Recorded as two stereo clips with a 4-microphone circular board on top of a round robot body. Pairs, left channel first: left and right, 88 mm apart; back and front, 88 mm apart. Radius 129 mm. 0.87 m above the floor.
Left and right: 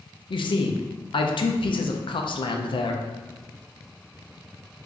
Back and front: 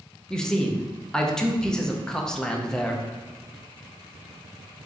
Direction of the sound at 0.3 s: 95° left.